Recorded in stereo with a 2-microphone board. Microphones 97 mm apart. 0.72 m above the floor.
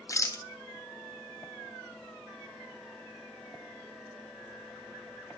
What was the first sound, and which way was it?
A rattle, 35° left (ahead or behind).